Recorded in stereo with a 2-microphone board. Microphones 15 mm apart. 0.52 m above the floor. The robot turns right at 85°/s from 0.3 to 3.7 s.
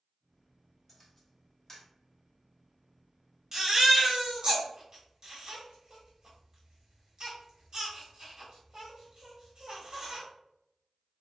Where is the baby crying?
25° right (ahead or behind), 1.4 m; by 10.2 s 45° right (ahead or behind), 1.4 m.